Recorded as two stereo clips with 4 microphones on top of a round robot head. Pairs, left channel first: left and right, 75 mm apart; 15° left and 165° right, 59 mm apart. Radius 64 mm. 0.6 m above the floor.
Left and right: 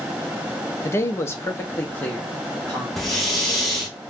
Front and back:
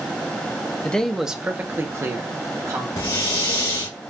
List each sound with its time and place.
0.8 s a man speaking: 70° left, 0.7 m; by 2.9 s 165° left, 1.5 m
3.0 s breathing: 5° left, 1.6 m